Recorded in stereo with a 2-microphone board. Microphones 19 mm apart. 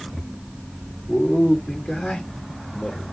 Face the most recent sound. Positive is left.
turn(degrees=70)  # may be behind; listen again after turning